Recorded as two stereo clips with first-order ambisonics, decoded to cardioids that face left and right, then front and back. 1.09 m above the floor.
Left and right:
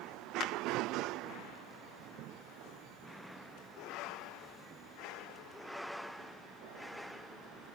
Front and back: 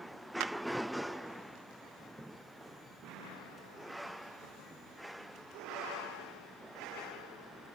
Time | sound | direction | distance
0.4 | a clap | 145° left | 0.9 m